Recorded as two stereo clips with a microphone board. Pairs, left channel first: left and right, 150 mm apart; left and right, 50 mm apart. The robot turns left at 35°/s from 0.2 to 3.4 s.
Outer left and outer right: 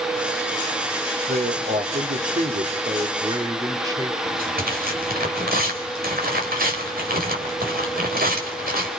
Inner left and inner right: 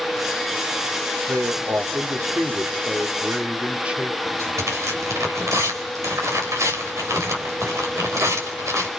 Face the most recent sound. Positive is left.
turn(degrees=-85)